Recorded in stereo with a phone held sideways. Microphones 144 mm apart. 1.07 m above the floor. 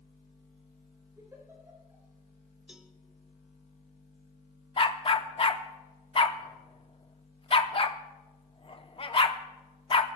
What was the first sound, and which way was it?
A giggle, 20° right (ahead or behind).